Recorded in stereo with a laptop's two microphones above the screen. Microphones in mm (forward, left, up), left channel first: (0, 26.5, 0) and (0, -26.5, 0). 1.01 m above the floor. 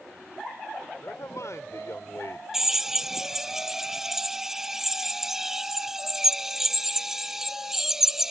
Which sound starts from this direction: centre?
A drill, at 2.5 s.